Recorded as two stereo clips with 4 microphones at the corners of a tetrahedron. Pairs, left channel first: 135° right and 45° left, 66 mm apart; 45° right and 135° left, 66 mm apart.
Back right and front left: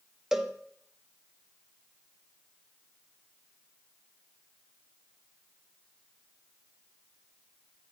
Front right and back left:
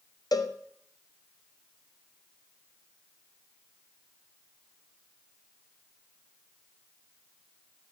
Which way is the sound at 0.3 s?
35° right.